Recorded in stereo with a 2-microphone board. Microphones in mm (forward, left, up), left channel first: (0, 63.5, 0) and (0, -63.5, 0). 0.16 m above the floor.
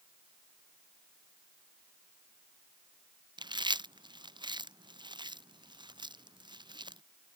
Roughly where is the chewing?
Right.